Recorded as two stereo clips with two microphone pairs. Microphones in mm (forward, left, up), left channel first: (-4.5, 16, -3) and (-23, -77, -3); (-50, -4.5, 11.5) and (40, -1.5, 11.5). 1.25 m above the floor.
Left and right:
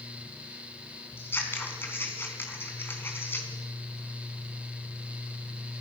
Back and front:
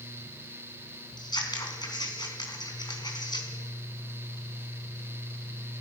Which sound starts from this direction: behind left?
Scissors, at 1.2 s.